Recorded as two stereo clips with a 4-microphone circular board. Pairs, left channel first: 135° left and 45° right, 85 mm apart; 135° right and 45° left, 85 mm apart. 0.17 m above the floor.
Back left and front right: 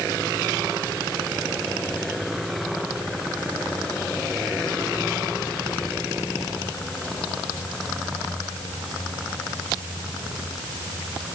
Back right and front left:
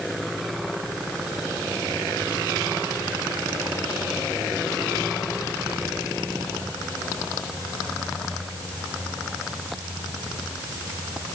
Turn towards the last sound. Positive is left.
No sound to turn to.